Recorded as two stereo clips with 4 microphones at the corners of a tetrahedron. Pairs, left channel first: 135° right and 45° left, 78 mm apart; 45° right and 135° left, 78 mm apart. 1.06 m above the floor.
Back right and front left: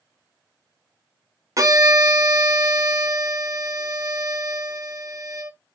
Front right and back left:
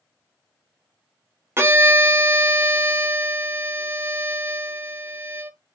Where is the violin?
80° left, 0.5 m.